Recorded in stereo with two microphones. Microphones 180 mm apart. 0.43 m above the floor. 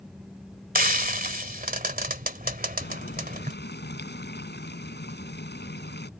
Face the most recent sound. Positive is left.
turn(degrees=75)  # may be behind; listen again after turning